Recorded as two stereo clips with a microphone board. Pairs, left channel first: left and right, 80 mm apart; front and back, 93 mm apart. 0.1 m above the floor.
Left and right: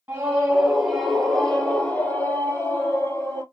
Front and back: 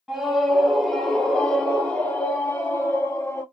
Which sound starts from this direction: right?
A scream, at 0.1 s.